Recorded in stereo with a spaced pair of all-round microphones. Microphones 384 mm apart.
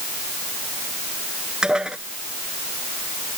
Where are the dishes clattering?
Centre (ahead or behind).